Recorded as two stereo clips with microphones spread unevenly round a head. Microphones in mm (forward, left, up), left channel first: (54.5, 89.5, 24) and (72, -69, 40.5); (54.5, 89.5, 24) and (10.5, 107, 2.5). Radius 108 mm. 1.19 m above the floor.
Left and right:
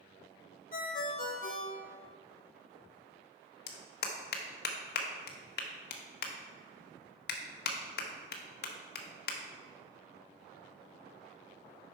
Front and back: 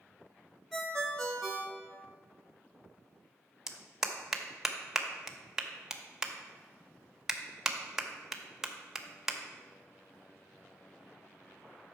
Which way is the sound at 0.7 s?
60° left.